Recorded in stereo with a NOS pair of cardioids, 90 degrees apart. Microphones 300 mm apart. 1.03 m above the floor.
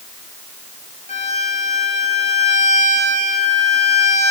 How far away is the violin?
About 10 m.